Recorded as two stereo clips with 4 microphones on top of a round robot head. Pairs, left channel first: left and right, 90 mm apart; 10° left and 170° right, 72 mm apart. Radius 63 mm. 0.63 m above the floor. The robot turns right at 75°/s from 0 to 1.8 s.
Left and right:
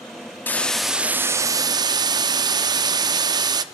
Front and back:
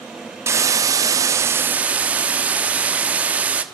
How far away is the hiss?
About 1.2 m.